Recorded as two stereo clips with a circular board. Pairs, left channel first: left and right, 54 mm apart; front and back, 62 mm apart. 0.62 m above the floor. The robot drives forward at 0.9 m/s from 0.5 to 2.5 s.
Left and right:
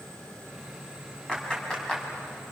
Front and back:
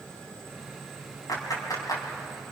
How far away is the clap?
About 5 m.